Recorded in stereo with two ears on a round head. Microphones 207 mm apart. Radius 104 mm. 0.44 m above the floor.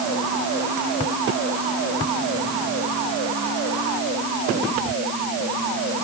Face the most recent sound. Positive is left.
No sound to turn to.